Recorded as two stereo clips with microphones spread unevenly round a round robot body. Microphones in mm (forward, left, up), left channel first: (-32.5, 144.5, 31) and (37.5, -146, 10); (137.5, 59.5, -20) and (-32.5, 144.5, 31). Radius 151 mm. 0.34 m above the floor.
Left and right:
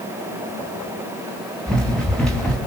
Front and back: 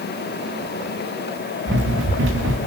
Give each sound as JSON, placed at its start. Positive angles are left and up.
{"t": 1.7, "sound": "running footsteps", "azimuth_deg": -170, "distance_m": 3.5}